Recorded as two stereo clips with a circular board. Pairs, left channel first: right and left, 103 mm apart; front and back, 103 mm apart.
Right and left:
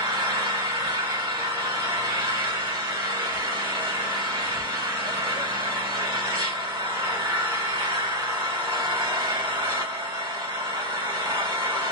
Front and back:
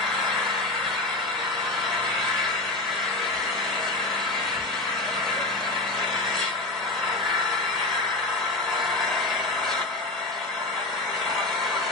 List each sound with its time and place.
0.0 s an engine running: 85° left, 1.5 m